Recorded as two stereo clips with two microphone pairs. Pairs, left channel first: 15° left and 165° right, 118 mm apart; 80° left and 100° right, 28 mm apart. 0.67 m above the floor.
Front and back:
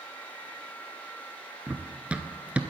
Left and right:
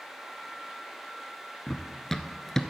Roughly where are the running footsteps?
Behind left.